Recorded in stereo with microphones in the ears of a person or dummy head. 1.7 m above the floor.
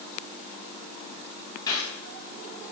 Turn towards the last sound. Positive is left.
turn(degrees=20)  # may be behind; listen again after turning